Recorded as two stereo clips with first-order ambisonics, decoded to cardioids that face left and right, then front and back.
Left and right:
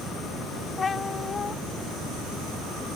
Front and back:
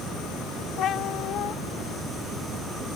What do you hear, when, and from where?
0.8 s a cat meowing: 30° left